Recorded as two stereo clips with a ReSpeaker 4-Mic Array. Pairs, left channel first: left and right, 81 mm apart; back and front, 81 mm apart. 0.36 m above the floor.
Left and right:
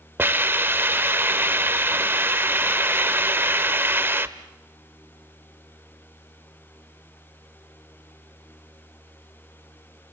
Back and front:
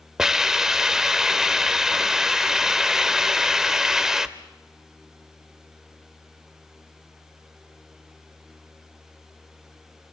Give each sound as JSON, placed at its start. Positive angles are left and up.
{"t": 0.2, "sound": "a hiss", "azimuth_deg": -75, "distance_m": 0.8}